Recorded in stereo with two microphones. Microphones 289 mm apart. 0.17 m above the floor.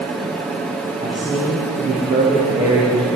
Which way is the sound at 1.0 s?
15° right (ahead or behind).